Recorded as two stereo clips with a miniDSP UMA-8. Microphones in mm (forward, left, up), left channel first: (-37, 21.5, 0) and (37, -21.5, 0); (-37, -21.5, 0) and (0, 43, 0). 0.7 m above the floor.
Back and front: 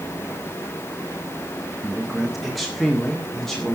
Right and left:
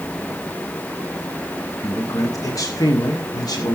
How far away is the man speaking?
About 1.4 m.